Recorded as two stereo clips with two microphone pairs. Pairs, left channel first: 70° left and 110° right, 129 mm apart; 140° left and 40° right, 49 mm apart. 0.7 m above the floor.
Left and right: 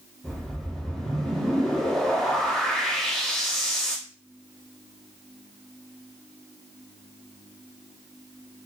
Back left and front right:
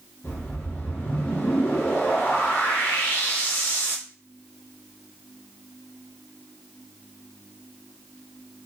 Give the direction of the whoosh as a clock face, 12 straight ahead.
7 o'clock.